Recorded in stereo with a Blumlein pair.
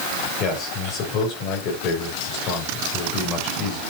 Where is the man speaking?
35° left, 7 m.